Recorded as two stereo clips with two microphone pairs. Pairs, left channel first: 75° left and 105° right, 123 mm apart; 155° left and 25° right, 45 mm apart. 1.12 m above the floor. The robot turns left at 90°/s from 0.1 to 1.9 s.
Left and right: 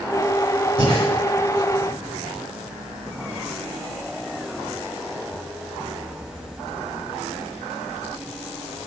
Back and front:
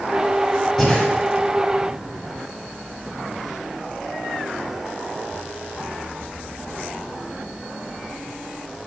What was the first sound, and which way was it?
Breathing, 120° right.